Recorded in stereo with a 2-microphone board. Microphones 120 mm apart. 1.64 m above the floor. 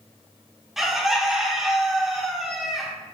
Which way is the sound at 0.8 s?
5° right (ahead or behind).